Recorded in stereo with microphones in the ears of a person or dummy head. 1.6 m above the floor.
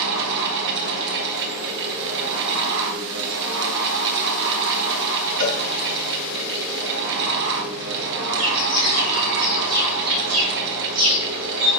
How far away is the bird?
About 3.5 m.